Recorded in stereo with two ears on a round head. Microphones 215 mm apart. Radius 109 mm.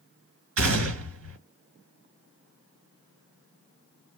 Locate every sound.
0.6 s a gunshot: 60° right (ahead or behind), 1.9 m